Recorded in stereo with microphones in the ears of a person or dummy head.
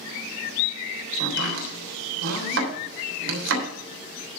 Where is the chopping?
70° right (ahead or behind), 3 m.